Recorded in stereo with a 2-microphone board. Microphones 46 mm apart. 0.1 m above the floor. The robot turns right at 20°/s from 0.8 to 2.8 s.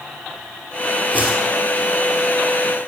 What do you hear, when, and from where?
1.1 s a whoosh: 40° left (ahead or behind), 2 m; by 1.5 s 45° left (ahead or behind), 2 m